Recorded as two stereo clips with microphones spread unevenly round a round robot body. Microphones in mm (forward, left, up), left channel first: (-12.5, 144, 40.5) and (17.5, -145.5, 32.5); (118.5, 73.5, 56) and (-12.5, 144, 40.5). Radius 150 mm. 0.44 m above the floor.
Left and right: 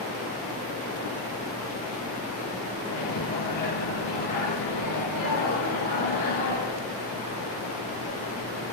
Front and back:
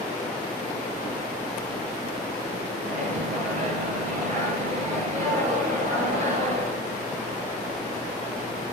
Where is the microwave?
120° left, 6.5 m.